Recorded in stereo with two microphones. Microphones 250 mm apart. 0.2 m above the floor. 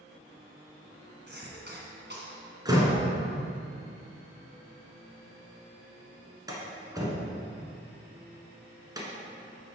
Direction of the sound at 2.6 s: 15° right (ahead or behind).